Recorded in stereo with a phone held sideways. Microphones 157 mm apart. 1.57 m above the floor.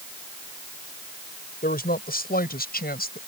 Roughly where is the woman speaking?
Left.